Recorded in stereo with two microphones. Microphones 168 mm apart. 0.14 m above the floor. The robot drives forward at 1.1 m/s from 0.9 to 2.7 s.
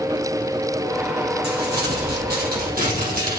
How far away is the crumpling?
About 3 m.